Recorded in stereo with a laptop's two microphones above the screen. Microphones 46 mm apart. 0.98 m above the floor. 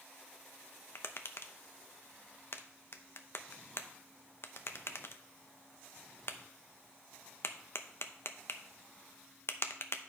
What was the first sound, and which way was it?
Tapping, 60° left (ahead or behind).